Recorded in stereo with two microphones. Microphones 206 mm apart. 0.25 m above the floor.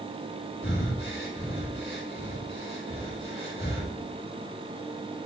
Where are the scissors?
No scissors in this recording.